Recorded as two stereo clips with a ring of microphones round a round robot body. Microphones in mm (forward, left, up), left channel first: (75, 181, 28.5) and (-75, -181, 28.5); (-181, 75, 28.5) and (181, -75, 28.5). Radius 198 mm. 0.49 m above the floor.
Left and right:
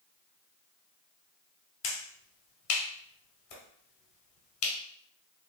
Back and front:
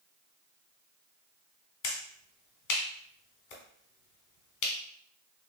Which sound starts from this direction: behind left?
A finger snap, at 1.8 s.